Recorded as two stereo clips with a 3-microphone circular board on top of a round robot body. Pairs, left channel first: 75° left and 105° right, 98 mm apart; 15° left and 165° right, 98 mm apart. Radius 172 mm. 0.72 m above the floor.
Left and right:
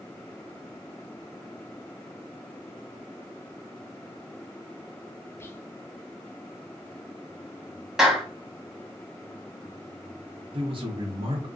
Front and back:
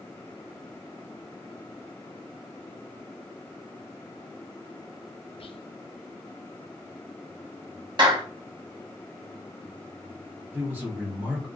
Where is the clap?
170° left, 1.1 m.